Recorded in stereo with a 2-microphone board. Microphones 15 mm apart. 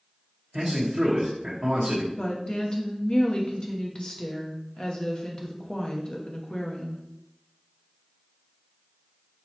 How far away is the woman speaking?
About 0.9 m.